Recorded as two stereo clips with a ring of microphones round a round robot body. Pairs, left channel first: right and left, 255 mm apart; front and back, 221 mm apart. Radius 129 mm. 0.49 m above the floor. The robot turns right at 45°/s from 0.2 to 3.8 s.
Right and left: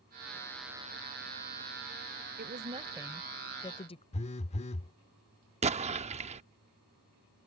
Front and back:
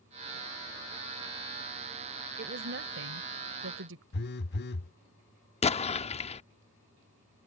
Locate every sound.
2.4 s a woman speaking: 140° left; by 4.0 s 155° right
4.1 s a phone buzzing: 30° right
5.6 s an explosion: 40° left